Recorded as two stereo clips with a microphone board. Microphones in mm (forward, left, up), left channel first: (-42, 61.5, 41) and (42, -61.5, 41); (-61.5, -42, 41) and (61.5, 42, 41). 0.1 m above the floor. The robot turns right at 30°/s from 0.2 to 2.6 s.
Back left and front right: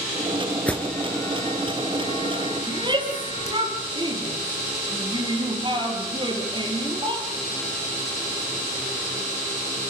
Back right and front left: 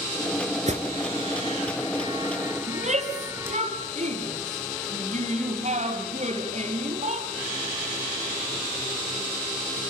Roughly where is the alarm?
Ahead left.